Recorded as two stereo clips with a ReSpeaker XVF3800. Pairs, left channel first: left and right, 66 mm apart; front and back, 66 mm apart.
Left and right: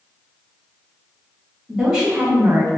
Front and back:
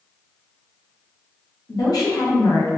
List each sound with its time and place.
1.7 s a woman speaking: 5° right, 1.4 m; by 2.7 s 55° right, 0.7 m